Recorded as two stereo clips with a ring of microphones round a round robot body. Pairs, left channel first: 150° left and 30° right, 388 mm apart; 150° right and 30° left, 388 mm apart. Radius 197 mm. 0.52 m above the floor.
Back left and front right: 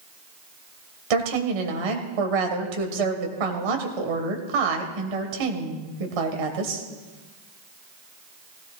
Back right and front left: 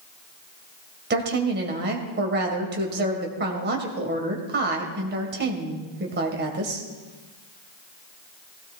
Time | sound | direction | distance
1.1 | a woman speaking | 35° right | 2.5 m